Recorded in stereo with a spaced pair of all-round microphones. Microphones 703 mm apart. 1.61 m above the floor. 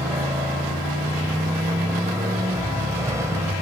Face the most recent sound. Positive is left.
turn(degrees=-5)  # may be behind; listen again after turning